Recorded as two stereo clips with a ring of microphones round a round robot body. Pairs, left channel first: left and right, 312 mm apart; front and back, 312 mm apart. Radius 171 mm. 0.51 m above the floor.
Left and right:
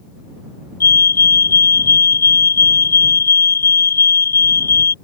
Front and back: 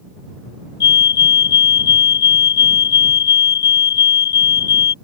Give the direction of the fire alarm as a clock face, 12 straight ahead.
11 o'clock.